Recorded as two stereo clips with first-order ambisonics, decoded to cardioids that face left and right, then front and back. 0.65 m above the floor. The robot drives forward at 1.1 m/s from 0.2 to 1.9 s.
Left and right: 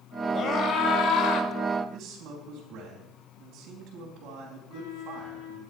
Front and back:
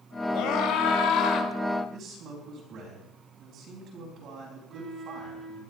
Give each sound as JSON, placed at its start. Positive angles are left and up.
{"t": 0.3, "sound": "a scream", "azimuth_deg": 30, "distance_m": 3.0}
{"t": 1.9, "sound": "a man speaking", "azimuth_deg": -130, "distance_m": 4.0}
{"t": 4.7, "sound": "a flute", "azimuth_deg": 110, "distance_m": 2.0}